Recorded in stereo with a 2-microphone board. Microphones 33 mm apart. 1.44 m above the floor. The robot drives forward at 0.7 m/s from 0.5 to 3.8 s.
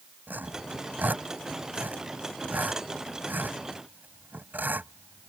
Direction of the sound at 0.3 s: 75° right (ahead or behind).